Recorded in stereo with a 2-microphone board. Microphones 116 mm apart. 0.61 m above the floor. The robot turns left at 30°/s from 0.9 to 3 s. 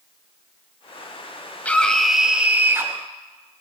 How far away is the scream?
About 3 m.